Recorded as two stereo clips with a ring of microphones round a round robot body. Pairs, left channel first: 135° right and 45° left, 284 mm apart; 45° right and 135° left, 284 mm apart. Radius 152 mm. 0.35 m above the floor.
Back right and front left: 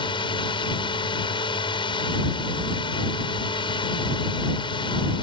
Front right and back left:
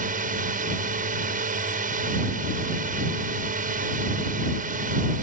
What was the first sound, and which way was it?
A drone, 165° left.